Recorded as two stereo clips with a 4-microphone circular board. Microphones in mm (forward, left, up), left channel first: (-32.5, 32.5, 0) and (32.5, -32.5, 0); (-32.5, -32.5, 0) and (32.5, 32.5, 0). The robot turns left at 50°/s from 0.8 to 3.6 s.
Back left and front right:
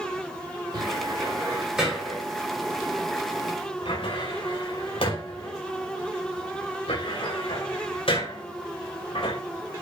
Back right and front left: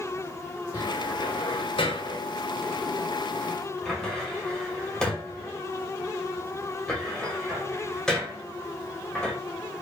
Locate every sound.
0.7 s a cupboard door: 80° right, 5.5 m; by 9.4 s 140° left, 5.5 m